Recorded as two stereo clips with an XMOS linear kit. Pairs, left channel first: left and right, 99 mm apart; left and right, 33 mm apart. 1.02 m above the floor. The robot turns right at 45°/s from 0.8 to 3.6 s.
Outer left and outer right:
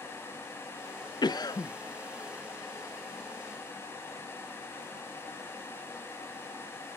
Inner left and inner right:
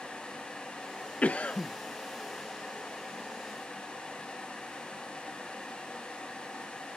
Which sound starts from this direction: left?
A cough, at 1.2 s.